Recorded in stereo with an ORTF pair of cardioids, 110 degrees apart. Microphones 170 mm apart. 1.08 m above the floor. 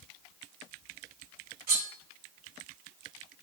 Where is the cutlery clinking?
65° right, 1.1 m.